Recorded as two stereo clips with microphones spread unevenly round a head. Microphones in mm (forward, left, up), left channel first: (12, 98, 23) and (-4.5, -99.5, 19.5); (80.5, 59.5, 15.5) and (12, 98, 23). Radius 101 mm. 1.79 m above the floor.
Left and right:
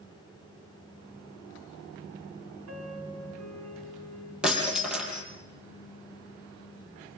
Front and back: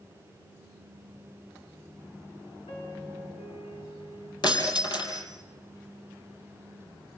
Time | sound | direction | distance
2.7 | a piano | 80° right | 5 m
4.4 | breaking glass | 10° right | 5 m